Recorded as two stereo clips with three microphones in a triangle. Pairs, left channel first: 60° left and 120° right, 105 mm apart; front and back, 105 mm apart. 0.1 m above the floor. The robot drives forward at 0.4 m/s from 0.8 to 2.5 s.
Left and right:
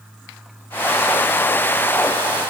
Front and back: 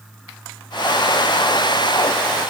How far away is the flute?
I don't hear a flute.